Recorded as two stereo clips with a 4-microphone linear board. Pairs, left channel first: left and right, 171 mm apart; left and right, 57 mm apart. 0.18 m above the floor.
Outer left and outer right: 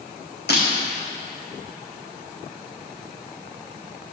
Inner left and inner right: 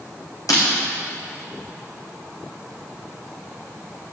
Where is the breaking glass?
85° left, 3.5 m.